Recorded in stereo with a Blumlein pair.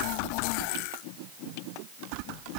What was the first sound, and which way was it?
Only background noise.